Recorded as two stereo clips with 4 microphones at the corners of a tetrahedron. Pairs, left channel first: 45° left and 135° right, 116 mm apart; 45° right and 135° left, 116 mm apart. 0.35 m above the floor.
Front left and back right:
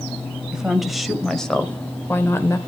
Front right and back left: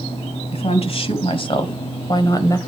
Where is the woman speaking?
50° right, 1.8 m; by 2.6 s 5° right, 1.1 m.